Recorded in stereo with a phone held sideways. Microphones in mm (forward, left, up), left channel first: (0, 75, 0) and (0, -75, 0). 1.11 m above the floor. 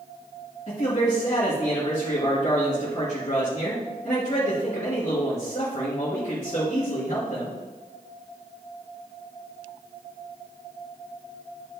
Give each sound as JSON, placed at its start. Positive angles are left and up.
{"t": 0.7, "sound": "a man speaking", "side_deg": 50, "distance_m": 1.9}